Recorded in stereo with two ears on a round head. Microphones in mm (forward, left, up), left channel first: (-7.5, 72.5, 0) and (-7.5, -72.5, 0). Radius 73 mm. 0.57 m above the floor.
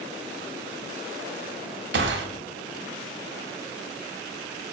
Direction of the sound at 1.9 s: 75° right (ahead or behind).